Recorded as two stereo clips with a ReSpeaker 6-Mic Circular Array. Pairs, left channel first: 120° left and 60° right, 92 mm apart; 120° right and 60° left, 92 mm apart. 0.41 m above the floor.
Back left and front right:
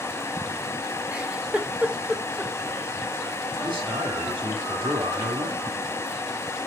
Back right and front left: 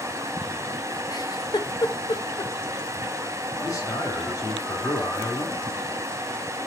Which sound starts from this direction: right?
A man speaking, at 3.6 s.